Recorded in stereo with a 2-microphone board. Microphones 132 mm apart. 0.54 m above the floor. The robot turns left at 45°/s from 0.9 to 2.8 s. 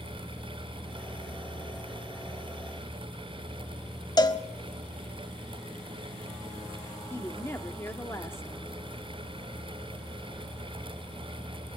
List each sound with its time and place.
4.2 s a cowbell: 30° left (ahead or behind), 0.9 m
7.1 s a woman speaking: 20° left (ahead or behind), 1.2 m